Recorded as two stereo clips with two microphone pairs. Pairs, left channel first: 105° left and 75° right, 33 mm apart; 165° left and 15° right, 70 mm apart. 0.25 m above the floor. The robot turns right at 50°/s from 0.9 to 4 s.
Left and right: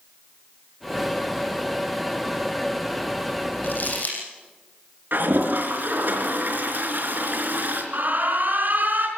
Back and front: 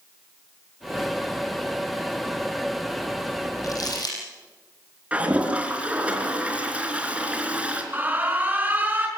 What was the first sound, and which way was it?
Crumpling, 130° left.